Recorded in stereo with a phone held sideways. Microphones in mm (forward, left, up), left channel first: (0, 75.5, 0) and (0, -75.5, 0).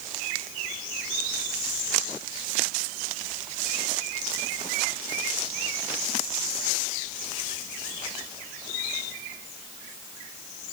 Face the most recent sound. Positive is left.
No sound to turn to.